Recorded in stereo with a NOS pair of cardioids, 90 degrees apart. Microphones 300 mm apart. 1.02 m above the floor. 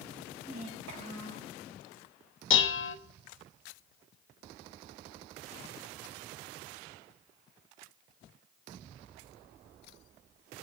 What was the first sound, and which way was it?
A child speaking, 65° right.